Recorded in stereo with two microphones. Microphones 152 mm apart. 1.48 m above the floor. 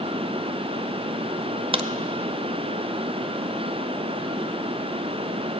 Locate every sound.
1.7 s a crack: 35° right (ahead or behind), 0.6 m